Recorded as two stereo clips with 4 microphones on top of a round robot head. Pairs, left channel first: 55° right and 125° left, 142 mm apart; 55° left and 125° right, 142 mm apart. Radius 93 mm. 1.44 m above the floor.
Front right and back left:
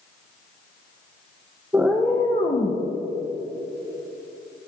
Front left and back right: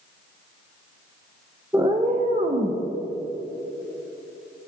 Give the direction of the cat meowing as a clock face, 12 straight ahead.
6 o'clock.